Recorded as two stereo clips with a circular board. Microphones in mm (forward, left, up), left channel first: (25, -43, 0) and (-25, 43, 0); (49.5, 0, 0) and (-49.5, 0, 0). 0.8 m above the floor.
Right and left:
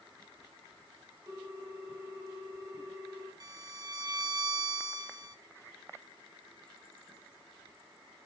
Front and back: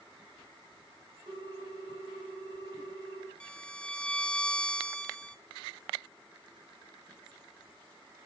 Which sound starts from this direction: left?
A violin, at 3.4 s.